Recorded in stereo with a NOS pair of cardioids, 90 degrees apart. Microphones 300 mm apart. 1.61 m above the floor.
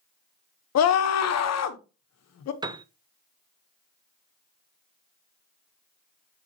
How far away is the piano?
About 0.7 m.